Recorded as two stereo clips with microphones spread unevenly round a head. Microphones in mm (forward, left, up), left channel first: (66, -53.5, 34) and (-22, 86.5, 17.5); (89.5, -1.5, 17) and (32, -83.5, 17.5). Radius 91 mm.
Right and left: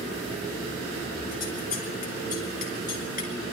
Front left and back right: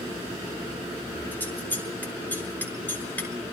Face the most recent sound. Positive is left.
turn(degrees=-20)